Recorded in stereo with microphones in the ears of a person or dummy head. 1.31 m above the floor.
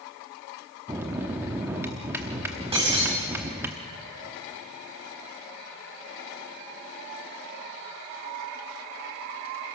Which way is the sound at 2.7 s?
30° right (ahead or behind).